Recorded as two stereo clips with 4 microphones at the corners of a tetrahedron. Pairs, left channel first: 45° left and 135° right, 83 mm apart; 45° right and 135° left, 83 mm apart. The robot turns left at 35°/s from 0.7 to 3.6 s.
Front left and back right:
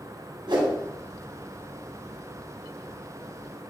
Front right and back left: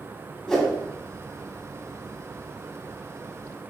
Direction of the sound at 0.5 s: 135° right.